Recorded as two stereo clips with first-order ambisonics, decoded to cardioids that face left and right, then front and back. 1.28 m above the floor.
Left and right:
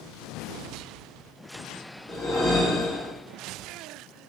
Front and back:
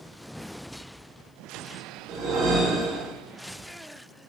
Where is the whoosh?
160° left, 2.5 m.